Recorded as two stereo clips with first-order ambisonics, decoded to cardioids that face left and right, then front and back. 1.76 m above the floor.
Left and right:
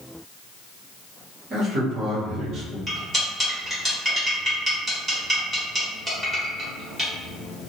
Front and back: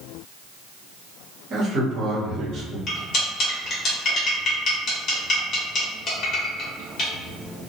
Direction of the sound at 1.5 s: 135° right.